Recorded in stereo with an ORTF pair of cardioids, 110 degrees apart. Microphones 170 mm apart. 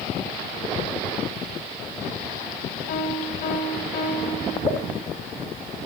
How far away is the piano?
About 3.5 m.